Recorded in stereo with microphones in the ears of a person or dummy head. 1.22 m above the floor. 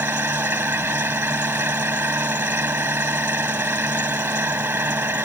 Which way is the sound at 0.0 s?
15° right (ahead or behind).